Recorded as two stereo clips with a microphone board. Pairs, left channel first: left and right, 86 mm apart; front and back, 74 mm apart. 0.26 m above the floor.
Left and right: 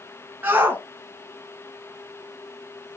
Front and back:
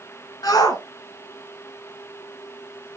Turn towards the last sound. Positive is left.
turn(degrees=-65)